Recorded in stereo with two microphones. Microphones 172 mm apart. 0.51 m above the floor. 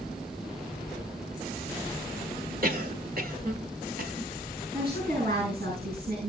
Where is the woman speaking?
65° right (ahead or behind), 8.5 m.